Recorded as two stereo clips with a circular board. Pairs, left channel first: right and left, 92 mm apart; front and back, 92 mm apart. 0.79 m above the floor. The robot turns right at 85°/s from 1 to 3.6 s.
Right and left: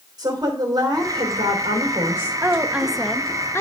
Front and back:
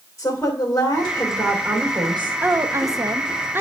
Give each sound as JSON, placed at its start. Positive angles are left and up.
{"t": 0.2, "sound": "a woman speaking", "azimuth_deg": 55, "distance_m": 3.0}
{"t": 2.4, "sound": "a woman speaking", "azimuth_deg": 130, "distance_m": 0.8}